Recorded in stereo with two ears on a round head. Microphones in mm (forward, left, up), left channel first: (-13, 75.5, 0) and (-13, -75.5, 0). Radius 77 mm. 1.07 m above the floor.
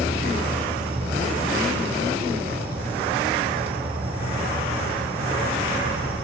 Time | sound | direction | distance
0.0 | an insect | 10° right (ahead or behind) | 2 m